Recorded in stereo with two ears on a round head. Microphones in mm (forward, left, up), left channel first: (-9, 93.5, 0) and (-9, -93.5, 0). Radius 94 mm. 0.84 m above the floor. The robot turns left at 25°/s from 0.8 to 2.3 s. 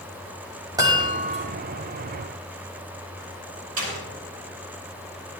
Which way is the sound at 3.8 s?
75° right (ahead or behind).